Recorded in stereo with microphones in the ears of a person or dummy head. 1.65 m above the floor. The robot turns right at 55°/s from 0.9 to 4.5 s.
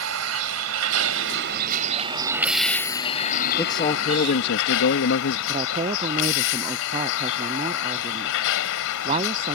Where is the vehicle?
95° right; by 9.6 s 105° left.